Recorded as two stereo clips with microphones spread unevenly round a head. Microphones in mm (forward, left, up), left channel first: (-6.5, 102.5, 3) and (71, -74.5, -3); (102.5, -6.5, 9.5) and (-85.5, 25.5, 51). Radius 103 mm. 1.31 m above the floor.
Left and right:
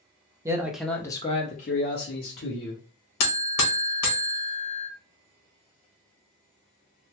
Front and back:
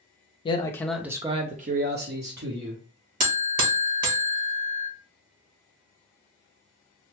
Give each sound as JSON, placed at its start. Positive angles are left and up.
{"t": 0.5, "sound": "a man speaking", "azimuth_deg": -5, "distance_m": 0.6}
{"t": 3.2, "sound": "a buzzer", "azimuth_deg": 125, "distance_m": 1.0}